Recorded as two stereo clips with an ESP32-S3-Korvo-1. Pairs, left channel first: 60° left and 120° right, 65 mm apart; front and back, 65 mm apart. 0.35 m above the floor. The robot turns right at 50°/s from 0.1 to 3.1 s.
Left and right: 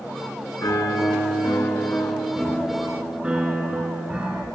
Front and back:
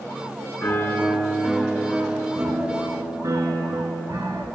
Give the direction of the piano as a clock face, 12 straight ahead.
11 o'clock.